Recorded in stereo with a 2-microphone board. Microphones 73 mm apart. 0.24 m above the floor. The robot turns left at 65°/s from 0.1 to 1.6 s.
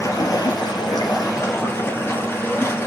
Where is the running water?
130° left, 2 m; by 2.9 s 30° left, 2 m.